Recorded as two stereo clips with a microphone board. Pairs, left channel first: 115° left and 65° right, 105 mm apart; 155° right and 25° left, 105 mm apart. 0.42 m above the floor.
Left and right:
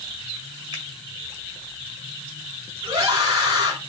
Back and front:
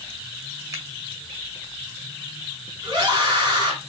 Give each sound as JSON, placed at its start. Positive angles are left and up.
{"t": 0.7, "sound": "a finger snap", "azimuth_deg": -35, "distance_m": 1.6}
{"t": 2.8, "sound": "a scream", "azimuth_deg": -25, "distance_m": 3.0}